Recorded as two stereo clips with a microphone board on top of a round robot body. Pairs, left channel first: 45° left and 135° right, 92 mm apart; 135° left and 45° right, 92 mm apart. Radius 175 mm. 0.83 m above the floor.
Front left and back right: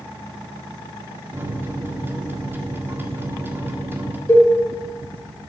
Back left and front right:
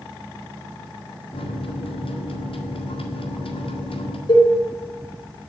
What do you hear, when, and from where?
1.3 s a microwave: 155° left, 1.7 m
4.3 s a cowbell: 105° left, 3.5 m